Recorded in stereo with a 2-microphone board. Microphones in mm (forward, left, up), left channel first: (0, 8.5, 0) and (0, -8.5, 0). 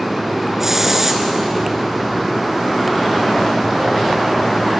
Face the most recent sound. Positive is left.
turn(degrees=-15)  # may be behind; listen again after turning